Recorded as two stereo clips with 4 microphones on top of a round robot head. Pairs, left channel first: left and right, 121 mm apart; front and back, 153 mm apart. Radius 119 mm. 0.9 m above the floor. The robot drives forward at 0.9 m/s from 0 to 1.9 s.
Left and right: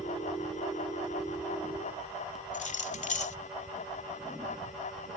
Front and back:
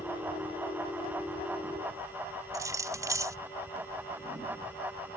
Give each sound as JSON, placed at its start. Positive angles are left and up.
{"t": 2.5, "sound": "keys jangling", "azimuth_deg": 110}